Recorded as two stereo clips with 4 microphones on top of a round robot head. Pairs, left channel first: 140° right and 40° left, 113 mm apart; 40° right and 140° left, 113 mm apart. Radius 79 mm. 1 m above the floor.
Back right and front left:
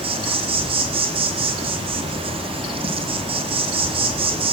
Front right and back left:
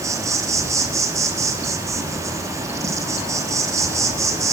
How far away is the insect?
About 2 m.